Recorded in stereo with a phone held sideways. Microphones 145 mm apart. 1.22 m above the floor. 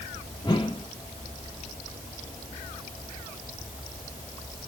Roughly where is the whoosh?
Left.